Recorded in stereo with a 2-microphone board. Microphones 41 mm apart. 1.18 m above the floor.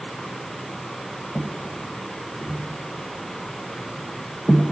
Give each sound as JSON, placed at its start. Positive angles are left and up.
{"t": 1.4, "sound": "footsteps", "side_deg": 45, "distance_m": 1.7}